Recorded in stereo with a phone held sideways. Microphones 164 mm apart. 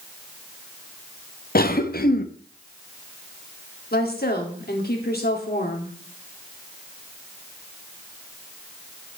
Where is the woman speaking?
70° left (ahead or behind), 2.5 m.